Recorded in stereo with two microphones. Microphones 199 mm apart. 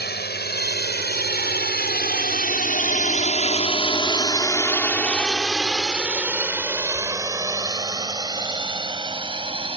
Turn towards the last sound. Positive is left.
turn(degrees=-25)  # may be behind; listen again after turning